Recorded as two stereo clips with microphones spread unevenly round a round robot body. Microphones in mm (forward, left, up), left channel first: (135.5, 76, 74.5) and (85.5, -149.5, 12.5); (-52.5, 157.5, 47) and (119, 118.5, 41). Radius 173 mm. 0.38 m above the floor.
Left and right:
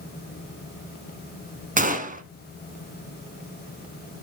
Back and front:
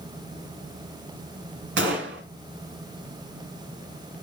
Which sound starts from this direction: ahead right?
A gunshot, at 1.8 s.